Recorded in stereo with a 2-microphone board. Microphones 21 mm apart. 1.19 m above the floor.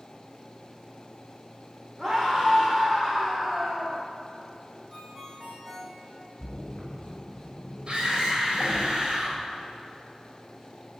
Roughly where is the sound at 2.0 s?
Right.